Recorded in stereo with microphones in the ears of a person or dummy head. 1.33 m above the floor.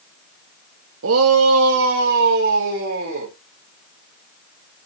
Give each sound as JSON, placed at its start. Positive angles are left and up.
{"t": 1.0, "sound": "a shout", "side_deg": -75, "distance_m": 0.9}